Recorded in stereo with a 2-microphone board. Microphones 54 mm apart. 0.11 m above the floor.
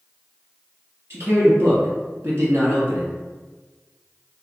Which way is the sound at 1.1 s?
50° right (ahead or behind).